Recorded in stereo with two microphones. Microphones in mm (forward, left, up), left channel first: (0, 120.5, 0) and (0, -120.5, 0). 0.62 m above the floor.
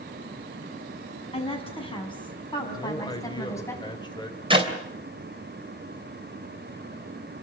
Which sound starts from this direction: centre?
A man speaking, at 2.7 s.